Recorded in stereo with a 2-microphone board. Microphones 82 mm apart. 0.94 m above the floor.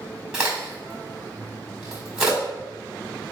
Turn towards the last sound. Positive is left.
turn(degrees=-10)  # may be behind; listen again after turning